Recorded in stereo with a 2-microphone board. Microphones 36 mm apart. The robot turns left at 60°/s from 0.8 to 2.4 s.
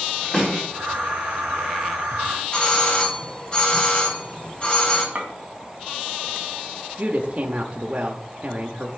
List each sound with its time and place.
0.3 s a snare drum: 15° left (ahead or behind), 4 m
2.5 s a doorbell: 35° left (ahead or behind), 2 m
5.2 s a clink: 35° right (ahead or behind), 2 m
7.0 s a woman speaking: 35° right (ahead or behind), 0.8 m